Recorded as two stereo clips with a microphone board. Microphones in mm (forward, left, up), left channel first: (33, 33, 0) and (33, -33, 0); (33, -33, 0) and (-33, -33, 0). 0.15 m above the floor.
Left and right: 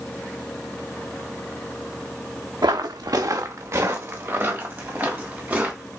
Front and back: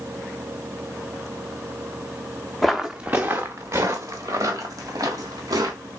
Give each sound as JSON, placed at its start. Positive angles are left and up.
{"t": 2.6, "sound": "footsteps", "azimuth_deg": -85, "distance_m": 0.6}